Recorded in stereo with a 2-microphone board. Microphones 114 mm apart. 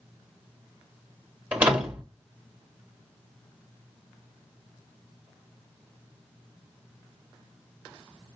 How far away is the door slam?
About 1.5 m.